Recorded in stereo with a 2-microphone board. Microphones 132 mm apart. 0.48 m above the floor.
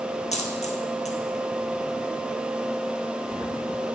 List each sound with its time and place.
0.3 s a dropped coin: 65° left (ahead or behind), 1.1 m